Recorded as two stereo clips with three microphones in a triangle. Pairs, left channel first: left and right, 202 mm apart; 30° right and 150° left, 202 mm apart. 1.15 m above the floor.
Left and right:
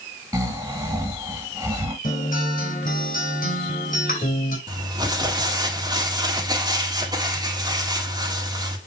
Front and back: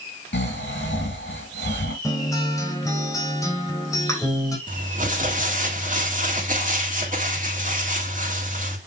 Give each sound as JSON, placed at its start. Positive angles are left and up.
{"t": 0.3, "sound": "snoring", "azimuth_deg": -15, "distance_m": 3.0}
{"t": 2.0, "sound": "a guitar", "azimuth_deg": 45, "distance_m": 2.5}
{"t": 4.7, "sound": "crumpling", "azimuth_deg": -160, "distance_m": 1.9}